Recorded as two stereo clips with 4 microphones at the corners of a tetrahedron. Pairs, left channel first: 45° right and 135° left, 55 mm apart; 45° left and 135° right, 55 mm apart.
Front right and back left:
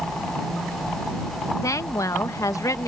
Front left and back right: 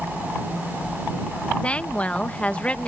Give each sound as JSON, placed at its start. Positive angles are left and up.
{"t": 1.6, "sound": "a woman speaking", "azimuth_deg": -25}